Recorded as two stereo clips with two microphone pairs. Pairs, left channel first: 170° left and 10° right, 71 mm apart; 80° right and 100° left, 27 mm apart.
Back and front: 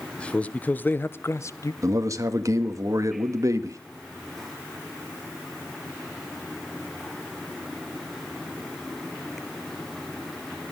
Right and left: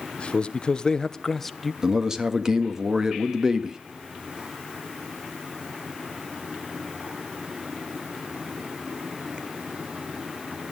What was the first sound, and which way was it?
A man speaking, 115° right.